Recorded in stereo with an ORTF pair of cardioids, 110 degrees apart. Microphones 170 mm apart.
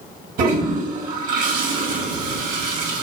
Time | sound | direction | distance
0.4 | a toilet flushing | 60° right | 2.5 m